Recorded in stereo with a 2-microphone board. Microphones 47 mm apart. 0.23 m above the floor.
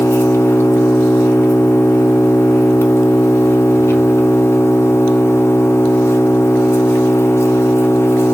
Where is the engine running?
65° left (ahead or behind), 0.8 m.